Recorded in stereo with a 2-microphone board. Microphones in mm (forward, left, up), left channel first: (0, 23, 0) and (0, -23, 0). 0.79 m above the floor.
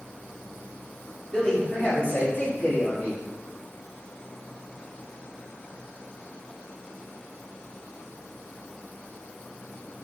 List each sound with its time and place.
1.3 s a man speaking: 15° left (ahead or behind), 1.8 m; by 3.2 s 60° left (ahead or behind), 1.7 m